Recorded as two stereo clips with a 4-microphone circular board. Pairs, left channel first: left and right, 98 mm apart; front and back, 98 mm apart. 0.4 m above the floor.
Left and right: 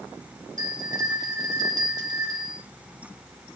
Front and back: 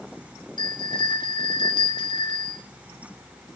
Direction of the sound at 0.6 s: 40° right.